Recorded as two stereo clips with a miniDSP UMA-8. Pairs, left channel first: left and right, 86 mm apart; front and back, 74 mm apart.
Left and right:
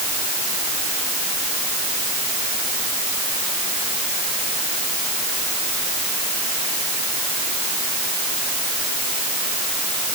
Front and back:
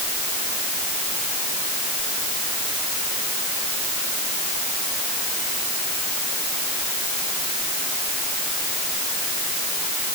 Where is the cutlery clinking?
No cutlery clinking in this recording.